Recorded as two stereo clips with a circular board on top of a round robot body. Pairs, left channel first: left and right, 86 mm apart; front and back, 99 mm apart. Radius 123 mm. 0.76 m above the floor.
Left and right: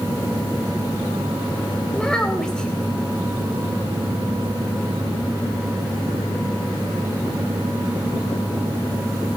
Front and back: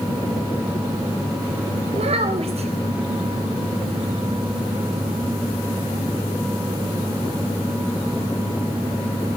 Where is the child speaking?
170° left, 4 m.